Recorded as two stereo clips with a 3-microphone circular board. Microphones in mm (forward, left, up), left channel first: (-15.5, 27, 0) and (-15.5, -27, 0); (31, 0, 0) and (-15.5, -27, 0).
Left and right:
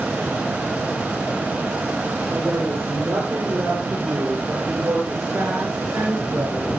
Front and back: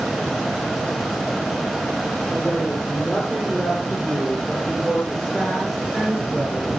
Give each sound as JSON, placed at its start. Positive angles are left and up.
{"t": 2.3, "sound": "a woman speaking", "azimuth_deg": -50, "distance_m": 8.5}